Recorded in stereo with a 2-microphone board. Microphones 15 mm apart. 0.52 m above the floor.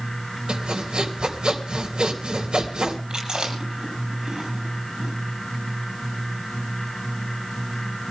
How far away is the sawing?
About 3 m.